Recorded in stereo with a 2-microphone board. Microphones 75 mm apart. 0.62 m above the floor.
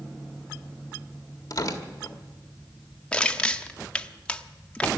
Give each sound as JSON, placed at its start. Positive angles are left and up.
{"t": 1.5, "sound": "tearing paper", "side_deg": 50, "distance_m": 1.6}
{"t": 3.1, "sound": "crushing", "side_deg": 15, "distance_m": 0.7}